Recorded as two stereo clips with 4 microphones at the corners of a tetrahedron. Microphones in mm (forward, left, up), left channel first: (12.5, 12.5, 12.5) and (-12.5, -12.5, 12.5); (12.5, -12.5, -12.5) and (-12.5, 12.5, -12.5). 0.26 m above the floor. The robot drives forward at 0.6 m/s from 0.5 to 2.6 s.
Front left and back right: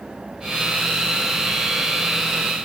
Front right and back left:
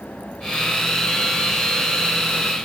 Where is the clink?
I don't hear a clink.